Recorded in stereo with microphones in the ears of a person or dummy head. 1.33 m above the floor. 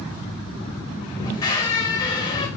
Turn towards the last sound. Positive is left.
turn(degrees=20)  # may be behind; listen again after turning